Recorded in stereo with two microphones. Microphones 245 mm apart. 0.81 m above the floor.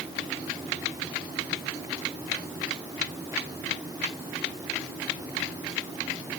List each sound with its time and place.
Only background noise.